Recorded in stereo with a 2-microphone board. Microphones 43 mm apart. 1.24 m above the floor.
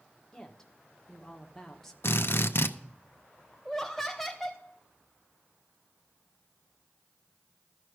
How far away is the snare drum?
I don't hear a snare drum.